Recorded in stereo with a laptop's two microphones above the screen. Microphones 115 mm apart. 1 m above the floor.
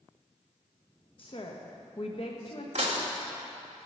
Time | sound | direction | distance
1.2 | a woman speaking | 50° left (ahead or behind) | 1.2 m
2.8 | dishes clattering | 70° right (ahead or behind) | 1.7 m